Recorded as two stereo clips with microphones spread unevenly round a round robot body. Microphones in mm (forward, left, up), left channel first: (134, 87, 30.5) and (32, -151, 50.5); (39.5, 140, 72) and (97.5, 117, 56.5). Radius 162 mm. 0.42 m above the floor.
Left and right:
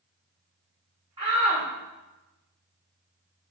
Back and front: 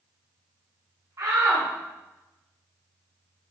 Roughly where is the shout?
Ahead right.